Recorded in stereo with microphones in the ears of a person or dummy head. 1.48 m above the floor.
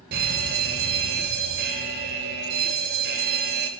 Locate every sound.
0.1 s a fire alarm: 55° right (ahead or behind), 2.5 m